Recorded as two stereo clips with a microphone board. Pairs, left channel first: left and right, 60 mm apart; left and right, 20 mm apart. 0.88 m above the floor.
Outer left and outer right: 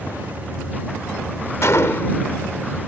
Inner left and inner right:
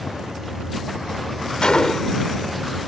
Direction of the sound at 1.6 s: 50° left (ahead or behind).